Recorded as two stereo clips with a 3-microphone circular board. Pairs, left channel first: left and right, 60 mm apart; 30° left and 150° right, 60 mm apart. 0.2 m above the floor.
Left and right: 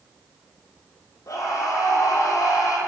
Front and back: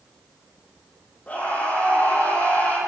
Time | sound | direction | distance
1.3 | a scream | 90° left | 9.5 m